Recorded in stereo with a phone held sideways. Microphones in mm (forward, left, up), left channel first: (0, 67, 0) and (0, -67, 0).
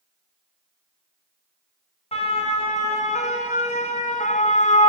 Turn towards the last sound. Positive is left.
turn(degrees=60)  # may be behind; listen again after turning